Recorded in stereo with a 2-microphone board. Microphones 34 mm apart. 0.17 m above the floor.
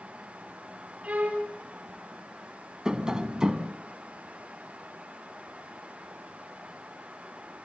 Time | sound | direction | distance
1.0 | a violin | 40° right (ahead or behind) | 3.5 m
2.9 | tapping | 20° right (ahead or behind) | 1.2 m